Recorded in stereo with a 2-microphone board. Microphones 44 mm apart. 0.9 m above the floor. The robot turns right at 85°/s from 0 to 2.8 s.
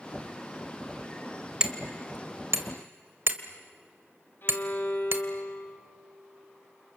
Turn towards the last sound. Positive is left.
turn(degrees=55)  # may be behind; listen again after turning